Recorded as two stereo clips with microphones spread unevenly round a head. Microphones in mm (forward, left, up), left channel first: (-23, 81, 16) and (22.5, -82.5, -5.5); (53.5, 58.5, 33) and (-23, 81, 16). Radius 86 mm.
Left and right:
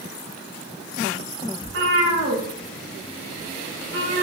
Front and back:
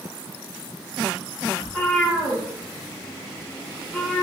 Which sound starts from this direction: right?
A cat meowing, at 1.6 s.